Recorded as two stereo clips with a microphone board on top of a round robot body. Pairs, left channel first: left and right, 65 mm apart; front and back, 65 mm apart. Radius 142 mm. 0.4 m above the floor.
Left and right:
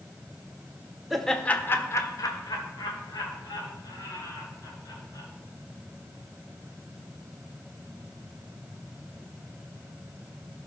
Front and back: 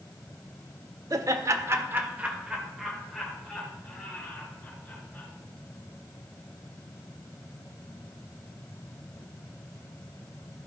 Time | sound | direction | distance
1.1 | laughter | straight behind | 1.5 m